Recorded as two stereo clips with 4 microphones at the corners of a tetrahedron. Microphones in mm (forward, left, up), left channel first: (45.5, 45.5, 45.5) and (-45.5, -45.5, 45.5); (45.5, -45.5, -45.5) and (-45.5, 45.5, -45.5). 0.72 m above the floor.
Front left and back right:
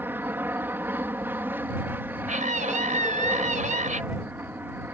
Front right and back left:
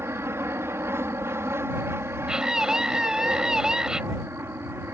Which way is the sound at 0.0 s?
175° left.